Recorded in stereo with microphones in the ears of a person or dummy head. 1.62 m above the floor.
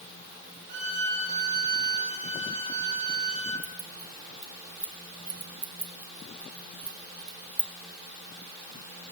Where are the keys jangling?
Centre (ahead or behind), 1.0 m.